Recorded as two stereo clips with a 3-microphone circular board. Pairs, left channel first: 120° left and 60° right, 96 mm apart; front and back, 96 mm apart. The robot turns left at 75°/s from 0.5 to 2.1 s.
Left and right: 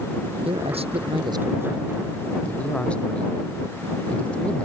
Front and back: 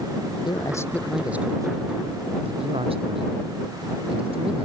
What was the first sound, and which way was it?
A man speaking, 40° right.